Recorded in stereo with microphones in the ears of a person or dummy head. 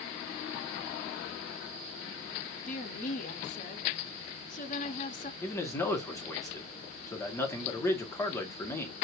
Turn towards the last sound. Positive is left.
turn(degrees=20)  # may be behind; listen again after turning